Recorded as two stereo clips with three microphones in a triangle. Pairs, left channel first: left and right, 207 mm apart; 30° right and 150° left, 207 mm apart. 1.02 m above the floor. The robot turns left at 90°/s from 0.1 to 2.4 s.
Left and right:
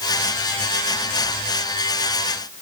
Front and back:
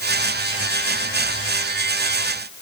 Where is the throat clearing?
I don't hear throat clearing.